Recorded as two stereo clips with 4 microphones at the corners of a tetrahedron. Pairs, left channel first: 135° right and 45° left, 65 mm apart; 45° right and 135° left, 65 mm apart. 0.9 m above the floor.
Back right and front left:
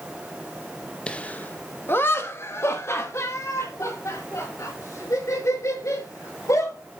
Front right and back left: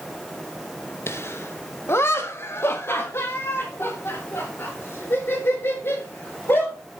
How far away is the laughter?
About 1.0 m.